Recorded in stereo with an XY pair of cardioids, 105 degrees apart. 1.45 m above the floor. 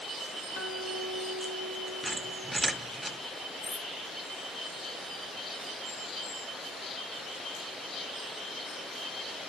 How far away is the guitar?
About 2 m.